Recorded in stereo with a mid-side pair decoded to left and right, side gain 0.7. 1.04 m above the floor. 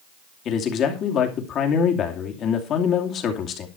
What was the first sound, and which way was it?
A man speaking, 45° left.